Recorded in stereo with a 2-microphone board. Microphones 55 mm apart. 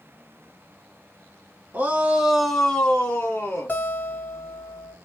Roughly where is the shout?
Right.